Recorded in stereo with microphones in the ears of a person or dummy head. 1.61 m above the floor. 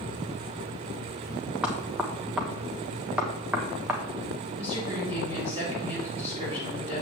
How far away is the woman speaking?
About 4 m.